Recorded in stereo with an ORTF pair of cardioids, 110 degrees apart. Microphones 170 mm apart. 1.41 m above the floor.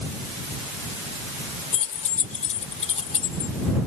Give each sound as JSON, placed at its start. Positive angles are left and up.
{"t": 1.7, "sound": "keys jangling", "azimuth_deg": 50}